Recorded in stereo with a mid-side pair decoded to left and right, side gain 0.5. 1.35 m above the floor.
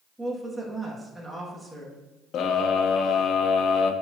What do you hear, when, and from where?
0.2 s a woman speaking: 10° right, 2.5 m
2.3 s a scream: 60° left, 0.9 m